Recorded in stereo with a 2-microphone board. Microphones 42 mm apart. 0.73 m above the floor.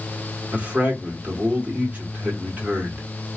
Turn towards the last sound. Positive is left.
turn(degrees=-40)  # may be behind; listen again after turning